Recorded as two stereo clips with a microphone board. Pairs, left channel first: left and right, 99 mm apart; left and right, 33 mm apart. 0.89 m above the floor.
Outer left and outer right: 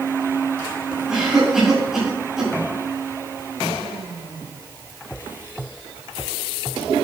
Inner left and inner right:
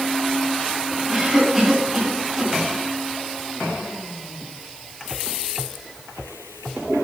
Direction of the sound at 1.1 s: 5° right (ahead or behind).